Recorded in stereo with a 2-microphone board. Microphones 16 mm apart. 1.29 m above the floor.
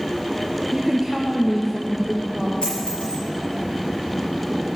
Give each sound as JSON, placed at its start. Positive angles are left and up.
{"t": 0.7, "sound": "a woman speaking", "side_deg": -30, "distance_m": 0.6}
{"t": 2.6, "sound": "a dropped coin", "side_deg": 65, "distance_m": 5.0}